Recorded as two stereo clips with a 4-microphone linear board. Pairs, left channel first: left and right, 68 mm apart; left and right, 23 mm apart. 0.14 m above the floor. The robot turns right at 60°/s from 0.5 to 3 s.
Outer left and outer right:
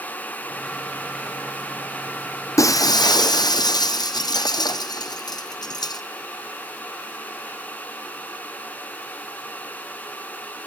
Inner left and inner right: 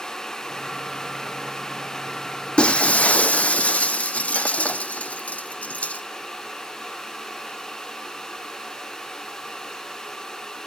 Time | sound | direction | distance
2.6 | breaking glass | 50° left (ahead or behind) | 0.8 m